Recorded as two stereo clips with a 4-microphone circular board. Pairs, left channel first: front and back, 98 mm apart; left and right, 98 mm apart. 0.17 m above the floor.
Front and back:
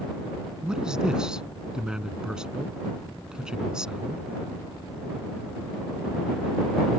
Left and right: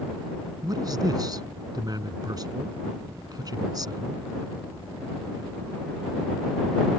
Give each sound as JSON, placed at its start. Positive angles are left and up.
{"t": 0.6, "sound": "a man speaking", "azimuth_deg": -100}